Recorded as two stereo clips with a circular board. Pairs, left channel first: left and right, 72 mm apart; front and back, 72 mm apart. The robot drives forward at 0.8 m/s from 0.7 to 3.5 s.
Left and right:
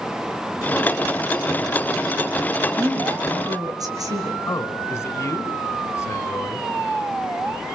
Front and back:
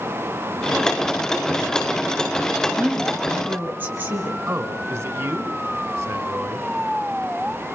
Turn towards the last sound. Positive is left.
turn(degrees=135)